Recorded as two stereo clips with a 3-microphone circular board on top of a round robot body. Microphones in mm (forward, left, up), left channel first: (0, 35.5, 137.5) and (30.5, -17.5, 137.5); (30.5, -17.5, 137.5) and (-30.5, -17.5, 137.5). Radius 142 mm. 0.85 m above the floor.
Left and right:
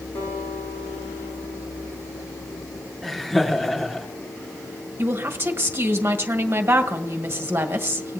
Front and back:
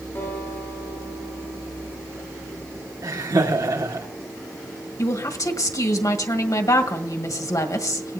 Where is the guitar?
55° left, 10 m.